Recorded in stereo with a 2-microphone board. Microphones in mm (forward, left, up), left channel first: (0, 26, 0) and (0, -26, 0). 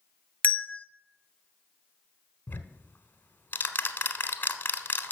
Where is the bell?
35° left (ahead or behind), 0.5 m.